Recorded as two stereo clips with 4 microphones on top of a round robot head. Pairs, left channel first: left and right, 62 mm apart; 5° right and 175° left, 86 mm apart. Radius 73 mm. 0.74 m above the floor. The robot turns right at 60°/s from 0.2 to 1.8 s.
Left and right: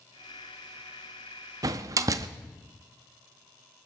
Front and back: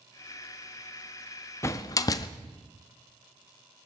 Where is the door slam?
65° right, 0.6 m; by 2.3 s 55° right, 0.6 m.